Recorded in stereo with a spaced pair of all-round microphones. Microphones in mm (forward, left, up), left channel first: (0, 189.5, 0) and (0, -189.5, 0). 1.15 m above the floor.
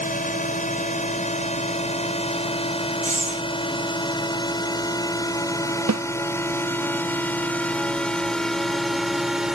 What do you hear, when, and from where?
0.0 s a drone: 20° left (ahead or behind); by 9.6 s centre (ahead or behind)
3.0 s breathing: 20° right (ahead or behind)
5.9 s a snare drum: 50° right (ahead or behind)